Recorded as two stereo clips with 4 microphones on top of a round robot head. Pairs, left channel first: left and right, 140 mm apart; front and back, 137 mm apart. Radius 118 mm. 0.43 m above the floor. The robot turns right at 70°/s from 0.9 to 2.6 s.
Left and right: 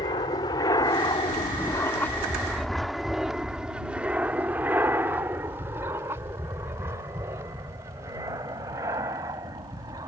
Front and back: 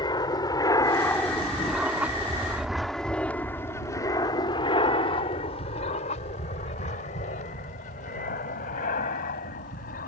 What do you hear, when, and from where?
0.0 s an aircraft: 40° left; by 10.1 s 20° right